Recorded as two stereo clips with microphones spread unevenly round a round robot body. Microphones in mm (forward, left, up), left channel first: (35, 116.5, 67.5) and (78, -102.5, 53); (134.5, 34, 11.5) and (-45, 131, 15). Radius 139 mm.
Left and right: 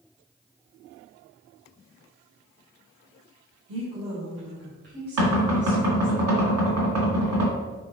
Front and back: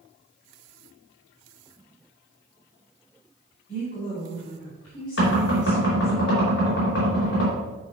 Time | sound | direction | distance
3.7 | a woman speaking | 85° right | 2.5 m
5.2 | knocking | 80° right | 2.5 m